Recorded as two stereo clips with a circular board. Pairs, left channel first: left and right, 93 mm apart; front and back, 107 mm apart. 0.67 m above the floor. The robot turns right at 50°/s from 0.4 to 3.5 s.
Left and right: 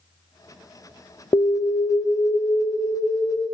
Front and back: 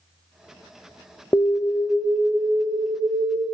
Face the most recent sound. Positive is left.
turn(degrees=170)